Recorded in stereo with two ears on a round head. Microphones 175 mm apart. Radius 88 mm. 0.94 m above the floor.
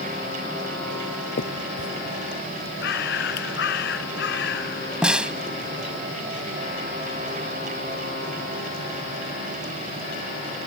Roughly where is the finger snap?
Left.